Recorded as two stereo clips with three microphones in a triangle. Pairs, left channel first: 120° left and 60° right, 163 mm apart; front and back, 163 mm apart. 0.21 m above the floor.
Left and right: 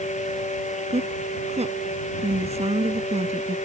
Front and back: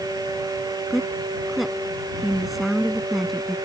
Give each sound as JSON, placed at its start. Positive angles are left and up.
{"t": 0.9, "sound": "a woman speaking", "azimuth_deg": -90}